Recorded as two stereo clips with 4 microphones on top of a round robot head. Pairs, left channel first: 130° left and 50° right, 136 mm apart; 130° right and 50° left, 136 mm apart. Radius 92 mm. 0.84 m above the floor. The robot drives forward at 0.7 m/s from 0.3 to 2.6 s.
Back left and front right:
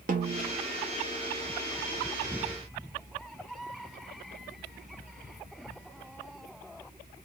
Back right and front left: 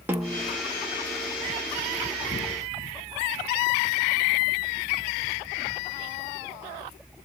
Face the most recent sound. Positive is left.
turn(degrees=-160)